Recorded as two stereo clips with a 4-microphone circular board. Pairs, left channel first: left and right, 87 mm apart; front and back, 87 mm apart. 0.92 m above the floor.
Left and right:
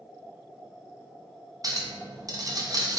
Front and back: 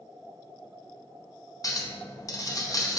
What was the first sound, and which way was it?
A clink, 45° right.